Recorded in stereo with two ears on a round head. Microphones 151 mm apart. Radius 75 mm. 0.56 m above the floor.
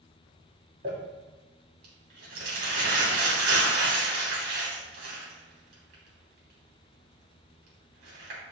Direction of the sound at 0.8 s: 60° right (ahead or behind).